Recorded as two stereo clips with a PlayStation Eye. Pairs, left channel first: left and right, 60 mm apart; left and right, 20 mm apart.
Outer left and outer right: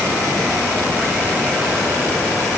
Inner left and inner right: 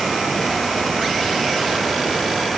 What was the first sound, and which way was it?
Only background noise.